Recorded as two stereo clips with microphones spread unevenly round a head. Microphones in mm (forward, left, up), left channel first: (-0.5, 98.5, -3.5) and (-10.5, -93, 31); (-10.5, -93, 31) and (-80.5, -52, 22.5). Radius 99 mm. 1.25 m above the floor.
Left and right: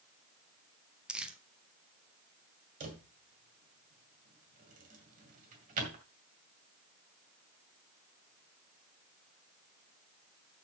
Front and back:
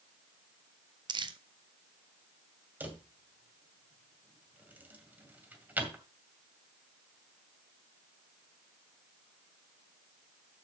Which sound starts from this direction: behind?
Crumpling, at 1.1 s.